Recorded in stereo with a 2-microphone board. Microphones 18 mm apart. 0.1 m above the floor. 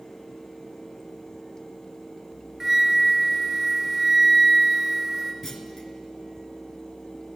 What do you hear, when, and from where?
2.6 s a flute: 20° right (ahead or behind), 1.1 m
5.4 s a clunk: 20° left (ahead or behind), 0.8 m